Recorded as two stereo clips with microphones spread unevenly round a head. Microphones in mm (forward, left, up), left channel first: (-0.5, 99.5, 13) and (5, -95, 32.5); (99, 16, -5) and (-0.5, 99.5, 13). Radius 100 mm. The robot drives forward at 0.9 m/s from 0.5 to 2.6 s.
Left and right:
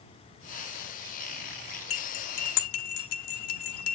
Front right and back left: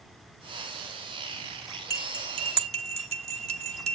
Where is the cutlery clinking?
70° left, 1.0 m; by 4.0 s 105° left, 1.0 m.